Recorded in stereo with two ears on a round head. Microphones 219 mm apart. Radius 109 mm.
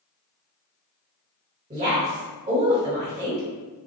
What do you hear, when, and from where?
1.7 s a woman speaking: 30° right (ahead or behind), 1.6 m